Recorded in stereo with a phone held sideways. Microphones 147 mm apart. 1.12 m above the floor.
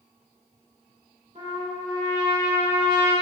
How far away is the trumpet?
About 1.7 m.